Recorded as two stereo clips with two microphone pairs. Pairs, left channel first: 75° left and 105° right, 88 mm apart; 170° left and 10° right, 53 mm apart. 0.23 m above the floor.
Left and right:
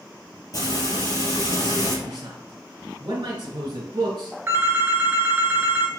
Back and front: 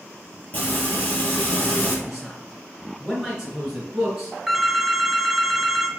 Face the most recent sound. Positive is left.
turn(degrees=-80)